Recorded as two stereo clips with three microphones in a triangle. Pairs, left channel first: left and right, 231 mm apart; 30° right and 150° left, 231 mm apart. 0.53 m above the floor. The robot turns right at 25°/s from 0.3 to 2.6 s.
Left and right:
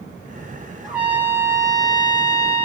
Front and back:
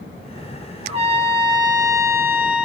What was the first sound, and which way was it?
A trumpet, 175° right.